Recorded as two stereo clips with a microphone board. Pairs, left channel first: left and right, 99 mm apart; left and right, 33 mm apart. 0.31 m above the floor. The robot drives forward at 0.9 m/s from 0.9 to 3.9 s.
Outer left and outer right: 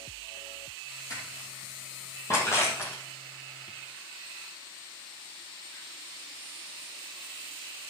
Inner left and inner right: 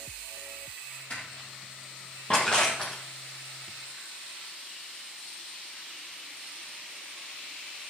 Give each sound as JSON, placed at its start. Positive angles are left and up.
{"t": 1.1, "sound": "crushing", "side_deg": 35, "distance_m": 5.0}